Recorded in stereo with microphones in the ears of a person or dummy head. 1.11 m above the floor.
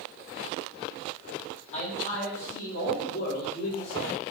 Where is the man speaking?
40° left (ahead or behind), 2.0 m; by 4.2 s 80° left, 2.5 m.